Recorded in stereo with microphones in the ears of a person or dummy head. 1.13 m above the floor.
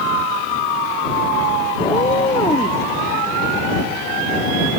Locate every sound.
1.8 s a cat meowing: 20° left (ahead or behind); by 2.8 s 25° left (ahead or behind)